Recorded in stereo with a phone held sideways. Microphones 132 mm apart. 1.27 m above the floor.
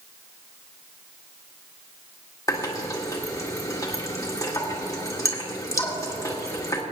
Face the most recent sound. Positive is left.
turn(degrees=25)  # may be behind; listen again after turning